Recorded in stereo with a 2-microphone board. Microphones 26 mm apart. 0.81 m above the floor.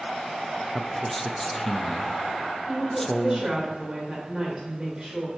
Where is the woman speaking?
25° right (ahead or behind), 3 m.